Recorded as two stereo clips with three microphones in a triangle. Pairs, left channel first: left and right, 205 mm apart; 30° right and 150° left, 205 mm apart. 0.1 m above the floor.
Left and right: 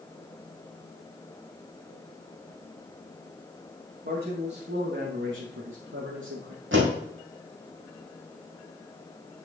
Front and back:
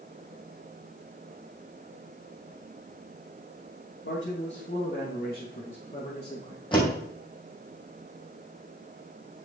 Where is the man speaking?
45° right, 4.5 m; by 6.6 s 95° right, 5 m.